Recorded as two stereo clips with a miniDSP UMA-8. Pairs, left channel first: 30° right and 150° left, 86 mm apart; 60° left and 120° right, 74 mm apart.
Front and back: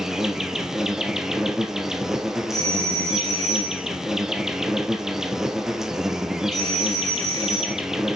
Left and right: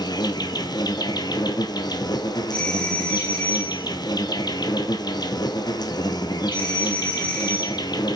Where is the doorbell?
10° right, 2.5 m.